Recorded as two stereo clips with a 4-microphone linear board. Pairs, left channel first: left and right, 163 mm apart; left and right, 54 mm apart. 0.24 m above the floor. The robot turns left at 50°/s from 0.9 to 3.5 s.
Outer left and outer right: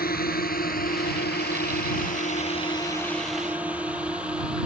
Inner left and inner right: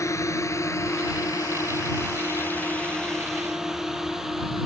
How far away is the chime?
I don't hear a chime.